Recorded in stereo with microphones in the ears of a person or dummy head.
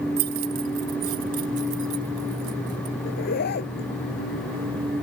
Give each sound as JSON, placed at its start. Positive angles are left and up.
{"t": 0.2, "sound": "keys jangling", "side_deg": -50}
{"t": 3.0, "sound": "a zipper", "side_deg": 50}